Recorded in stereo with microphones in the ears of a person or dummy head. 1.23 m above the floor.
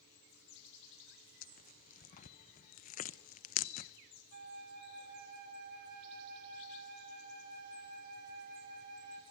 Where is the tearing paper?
45° left (ahead or behind), 0.7 m.